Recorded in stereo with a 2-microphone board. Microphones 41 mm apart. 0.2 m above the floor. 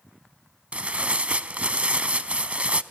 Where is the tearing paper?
35° right (ahead or behind), 0.5 m.